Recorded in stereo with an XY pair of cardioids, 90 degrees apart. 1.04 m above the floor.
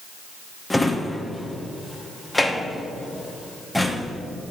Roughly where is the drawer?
Ahead.